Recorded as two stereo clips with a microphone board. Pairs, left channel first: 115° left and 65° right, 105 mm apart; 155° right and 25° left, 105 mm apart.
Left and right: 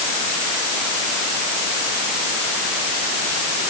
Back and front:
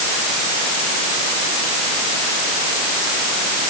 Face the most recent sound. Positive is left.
No sound to turn to.